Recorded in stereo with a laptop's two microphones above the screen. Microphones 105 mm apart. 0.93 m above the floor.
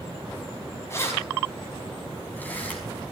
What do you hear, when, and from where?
0.9 s keys jangling: 25° left (ahead or behind), 4.5 m; by 2.8 s 15° left (ahead or behind), 5 m